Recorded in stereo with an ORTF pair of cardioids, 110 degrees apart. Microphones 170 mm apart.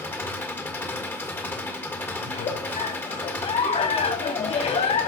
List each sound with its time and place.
0.0 s an engine running: 15° left, 1.6 m
2.2 s a giggle: 40° left, 2.5 m